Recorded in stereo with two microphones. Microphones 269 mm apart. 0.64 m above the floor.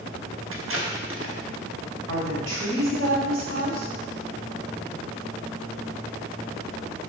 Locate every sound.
0.5 s tape being pulled: 50° right (ahead or behind), 1.0 m
2.1 s a woman speaking: 60° right (ahead or behind), 3 m